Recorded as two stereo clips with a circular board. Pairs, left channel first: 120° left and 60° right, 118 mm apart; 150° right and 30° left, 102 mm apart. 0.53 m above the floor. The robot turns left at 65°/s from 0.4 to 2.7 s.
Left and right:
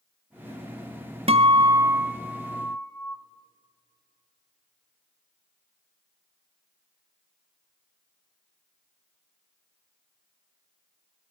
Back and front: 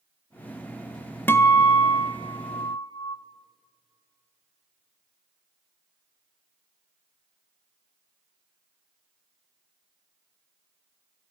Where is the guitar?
80° right, 0.6 m; by 3.2 s 175° right, 0.6 m.